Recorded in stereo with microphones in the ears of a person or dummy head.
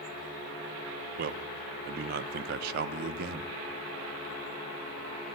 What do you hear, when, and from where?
1.2 s a man speaking: 50° right (ahead or behind), 0.8 m